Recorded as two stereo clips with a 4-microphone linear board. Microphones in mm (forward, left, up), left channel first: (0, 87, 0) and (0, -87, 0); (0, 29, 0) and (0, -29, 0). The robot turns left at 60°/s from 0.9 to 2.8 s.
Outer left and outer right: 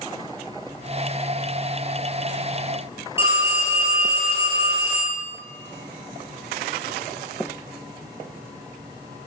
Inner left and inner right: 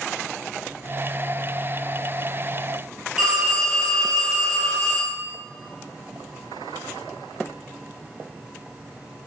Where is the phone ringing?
15° right (ahead or behind), 2 m.